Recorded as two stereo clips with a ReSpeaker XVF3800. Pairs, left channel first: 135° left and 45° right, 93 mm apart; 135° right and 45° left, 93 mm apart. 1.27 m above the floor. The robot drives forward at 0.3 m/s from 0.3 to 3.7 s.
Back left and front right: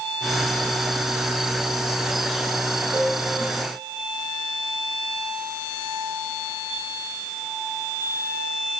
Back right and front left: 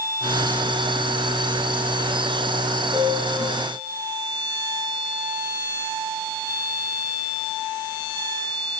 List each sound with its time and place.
2.9 s a piano: 140° right, 5.5 m